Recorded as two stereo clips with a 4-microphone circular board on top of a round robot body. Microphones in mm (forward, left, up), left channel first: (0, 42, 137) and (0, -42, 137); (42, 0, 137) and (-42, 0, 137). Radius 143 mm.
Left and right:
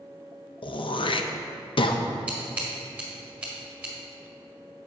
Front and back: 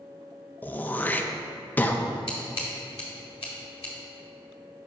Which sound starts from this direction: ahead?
Scissors, at 2.3 s.